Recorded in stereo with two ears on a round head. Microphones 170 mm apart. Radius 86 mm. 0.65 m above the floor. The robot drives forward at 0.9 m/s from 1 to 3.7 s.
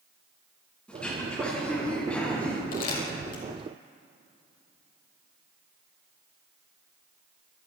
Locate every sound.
0.9 s throat clearing: 5° left (ahead or behind), 8.5 m
2.7 s crumpling: 50° left (ahead or behind), 6 m; by 3.4 s 45° left (ahead or behind), 6.5 m